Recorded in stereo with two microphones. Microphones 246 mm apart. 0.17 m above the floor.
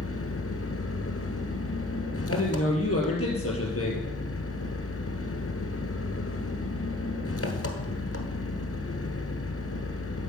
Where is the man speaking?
65° left (ahead or behind), 4 m.